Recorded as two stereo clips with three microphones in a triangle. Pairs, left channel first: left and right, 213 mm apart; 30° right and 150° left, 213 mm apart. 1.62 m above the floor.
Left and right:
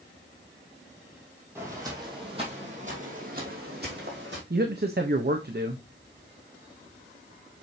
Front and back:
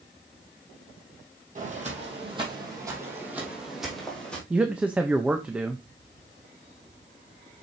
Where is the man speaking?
125° right, 0.8 m.